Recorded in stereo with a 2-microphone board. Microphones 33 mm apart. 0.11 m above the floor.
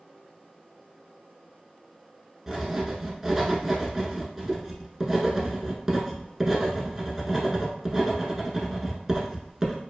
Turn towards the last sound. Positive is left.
turn(degrees=-10)  # may be behind; listen again after turning